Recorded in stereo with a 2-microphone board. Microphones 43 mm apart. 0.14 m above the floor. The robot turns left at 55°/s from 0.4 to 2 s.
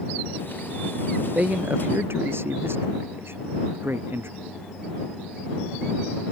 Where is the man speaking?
30° right; by 4.3 s 65° right.